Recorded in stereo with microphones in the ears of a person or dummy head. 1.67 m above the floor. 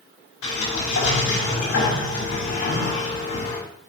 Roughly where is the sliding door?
Left.